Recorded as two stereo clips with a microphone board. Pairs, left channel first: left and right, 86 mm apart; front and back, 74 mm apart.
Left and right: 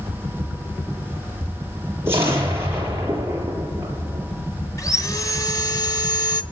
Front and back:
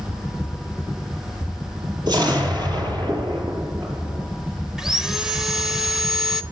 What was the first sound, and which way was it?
An explosion, 155° right.